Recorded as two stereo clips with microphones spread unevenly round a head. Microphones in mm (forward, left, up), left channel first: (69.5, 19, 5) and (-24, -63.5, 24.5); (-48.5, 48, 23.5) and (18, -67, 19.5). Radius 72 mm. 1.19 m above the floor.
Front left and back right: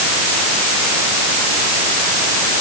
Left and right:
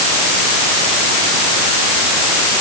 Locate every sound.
Only background noise.